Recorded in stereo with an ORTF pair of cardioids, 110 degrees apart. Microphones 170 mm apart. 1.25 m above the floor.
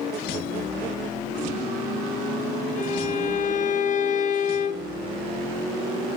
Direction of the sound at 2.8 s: 50° left.